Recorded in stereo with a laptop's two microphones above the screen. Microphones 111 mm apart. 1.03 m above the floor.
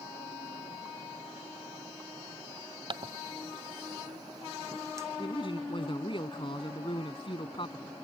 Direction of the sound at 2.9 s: 45° right (ahead or behind).